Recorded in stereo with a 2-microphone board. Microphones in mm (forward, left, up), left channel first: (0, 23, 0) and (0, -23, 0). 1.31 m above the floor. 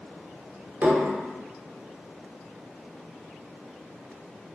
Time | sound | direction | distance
0.8 | dishes clattering | 45° right (ahead or behind) | 0.6 m